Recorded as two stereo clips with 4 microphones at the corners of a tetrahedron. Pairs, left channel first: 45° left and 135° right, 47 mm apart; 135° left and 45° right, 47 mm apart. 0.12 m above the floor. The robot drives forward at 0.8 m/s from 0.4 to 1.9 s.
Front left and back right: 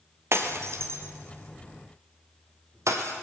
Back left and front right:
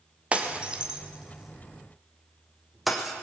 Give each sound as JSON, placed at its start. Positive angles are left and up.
{"t": 0.3, "sound": "breaking glass", "azimuth_deg": -110, "distance_m": 2.0}